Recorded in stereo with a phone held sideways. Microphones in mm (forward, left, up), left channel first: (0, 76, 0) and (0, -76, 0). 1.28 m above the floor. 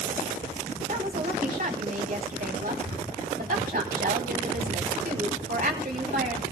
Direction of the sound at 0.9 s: 60° right (ahead or behind).